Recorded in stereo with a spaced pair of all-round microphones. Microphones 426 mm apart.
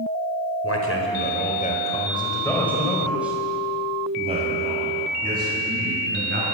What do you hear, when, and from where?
0.6 s a man speaking: 35° left (ahead or behind), 5 m; by 6.5 s 25° right (ahead or behind), 10 m